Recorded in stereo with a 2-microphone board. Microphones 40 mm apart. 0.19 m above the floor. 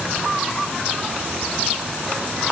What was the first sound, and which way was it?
Only background noise.